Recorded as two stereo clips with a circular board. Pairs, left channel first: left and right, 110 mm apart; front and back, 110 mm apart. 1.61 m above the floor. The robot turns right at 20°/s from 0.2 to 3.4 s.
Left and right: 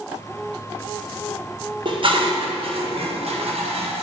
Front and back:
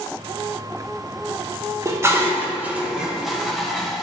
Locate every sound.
1.9 s dishes clattering: 120° right, 1.1 m; by 4.0 s 90° right, 1.1 m